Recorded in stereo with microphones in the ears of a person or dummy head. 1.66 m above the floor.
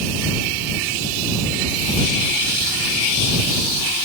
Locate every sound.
Only background noise.